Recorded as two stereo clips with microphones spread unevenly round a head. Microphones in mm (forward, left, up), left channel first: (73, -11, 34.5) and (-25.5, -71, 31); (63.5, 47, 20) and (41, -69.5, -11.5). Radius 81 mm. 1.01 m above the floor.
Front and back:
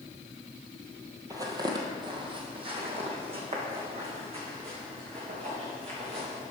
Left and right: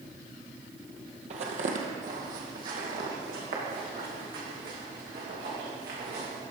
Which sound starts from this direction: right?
Footsteps, at 1.3 s.